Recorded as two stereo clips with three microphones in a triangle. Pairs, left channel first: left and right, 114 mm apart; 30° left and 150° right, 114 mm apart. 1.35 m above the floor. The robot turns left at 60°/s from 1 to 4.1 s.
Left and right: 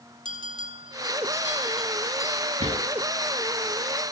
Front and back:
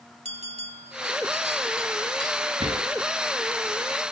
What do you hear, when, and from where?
0.2 s a bell: 135° right, 4.5 m; by 2.4 s 140° left, 4.5 m
2.6 s a drawer: 105° right, 7 m; by 2.8 s 120° right, 7 m